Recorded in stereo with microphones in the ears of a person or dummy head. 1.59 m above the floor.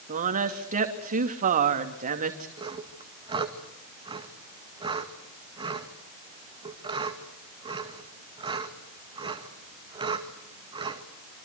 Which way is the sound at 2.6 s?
30° right (ahead or behind).